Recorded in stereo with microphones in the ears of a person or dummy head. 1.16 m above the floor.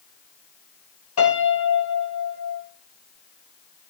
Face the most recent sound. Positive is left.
turn(degrees=80)